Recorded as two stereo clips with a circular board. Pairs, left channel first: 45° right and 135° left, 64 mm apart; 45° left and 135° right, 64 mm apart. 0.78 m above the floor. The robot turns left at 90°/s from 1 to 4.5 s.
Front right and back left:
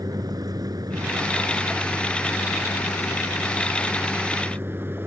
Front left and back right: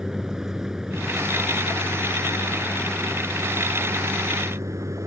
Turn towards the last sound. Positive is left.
turn(degrees=-170)